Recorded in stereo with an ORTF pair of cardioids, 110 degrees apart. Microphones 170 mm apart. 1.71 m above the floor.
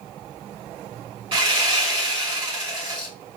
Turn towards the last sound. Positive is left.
turn(degrees=-35)